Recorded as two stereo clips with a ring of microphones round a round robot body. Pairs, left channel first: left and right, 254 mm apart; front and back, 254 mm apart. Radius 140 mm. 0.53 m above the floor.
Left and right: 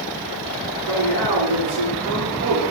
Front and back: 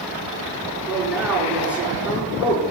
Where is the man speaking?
90° right, 7 m.